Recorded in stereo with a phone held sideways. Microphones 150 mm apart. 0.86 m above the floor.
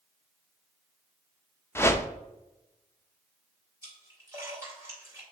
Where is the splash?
20° right (ahead or behind), 3 m.